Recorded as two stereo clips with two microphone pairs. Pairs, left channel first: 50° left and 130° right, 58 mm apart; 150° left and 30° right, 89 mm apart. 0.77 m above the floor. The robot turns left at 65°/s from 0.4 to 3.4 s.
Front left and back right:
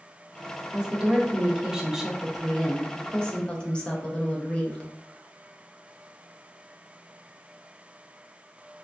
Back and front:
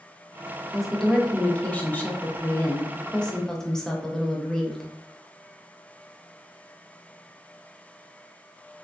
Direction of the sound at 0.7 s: 105° right.